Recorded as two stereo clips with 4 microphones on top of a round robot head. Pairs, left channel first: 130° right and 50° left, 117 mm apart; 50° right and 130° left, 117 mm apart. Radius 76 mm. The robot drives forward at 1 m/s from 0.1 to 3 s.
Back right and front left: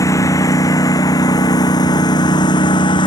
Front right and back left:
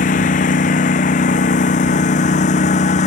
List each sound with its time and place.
0.0 s a lawn mower: 65° right; by 3.1 s 75° right